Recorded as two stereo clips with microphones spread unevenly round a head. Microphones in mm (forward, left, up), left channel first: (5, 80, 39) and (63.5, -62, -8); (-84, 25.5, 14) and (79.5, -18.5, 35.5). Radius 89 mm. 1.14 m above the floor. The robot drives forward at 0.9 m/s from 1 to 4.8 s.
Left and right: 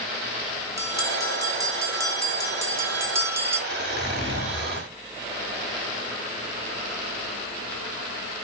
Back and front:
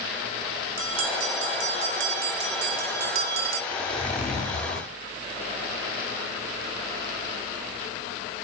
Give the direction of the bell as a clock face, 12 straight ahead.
12 o'clock.